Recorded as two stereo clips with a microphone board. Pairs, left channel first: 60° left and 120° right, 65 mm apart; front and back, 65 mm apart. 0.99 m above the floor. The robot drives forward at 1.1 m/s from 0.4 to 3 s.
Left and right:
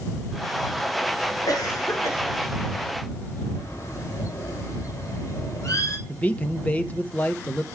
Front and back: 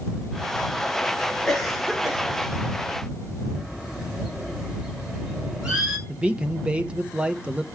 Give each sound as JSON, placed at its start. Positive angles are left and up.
{"t": 1.5, "sound": "a cough", "azimuth_deg": 85, "distance_m": 3.0}
{"t": 3.5, "sound": "a bird", "azimuth_deg": 105, "distance_m": 2.5}
{"t": 6.1, "sound": "a man speaking", "azimuth_deg": 120, "distance_m": 0.9}